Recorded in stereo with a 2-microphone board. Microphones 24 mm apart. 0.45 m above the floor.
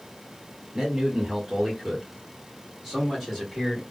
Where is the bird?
No bird in this recording.